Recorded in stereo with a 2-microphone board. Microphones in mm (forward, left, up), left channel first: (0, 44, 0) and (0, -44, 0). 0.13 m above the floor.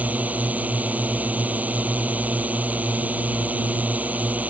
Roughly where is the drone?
Centre.